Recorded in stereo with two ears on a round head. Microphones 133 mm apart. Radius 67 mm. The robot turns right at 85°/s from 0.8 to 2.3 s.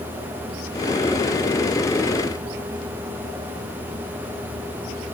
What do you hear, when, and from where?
Only background noise.